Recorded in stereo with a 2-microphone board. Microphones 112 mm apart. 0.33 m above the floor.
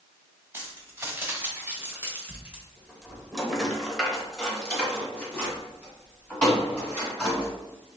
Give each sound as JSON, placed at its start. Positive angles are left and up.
{"t": 0.5, "sound": "keys jangling", "side_deg": -20, "distance_m": 1.3}